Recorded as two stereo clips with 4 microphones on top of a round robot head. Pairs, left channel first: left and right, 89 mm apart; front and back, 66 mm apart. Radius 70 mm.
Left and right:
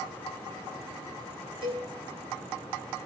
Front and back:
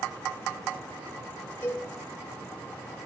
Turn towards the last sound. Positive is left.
turn(degrees=-70)